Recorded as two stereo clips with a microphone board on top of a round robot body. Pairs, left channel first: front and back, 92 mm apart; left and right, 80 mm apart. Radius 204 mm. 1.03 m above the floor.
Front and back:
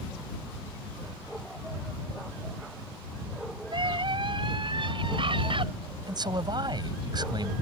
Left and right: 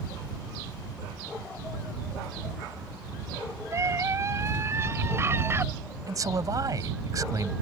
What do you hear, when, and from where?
3.7 s a scream: 145° right; by 5.7 s 150° right
6.1 s a man speaking: 135° right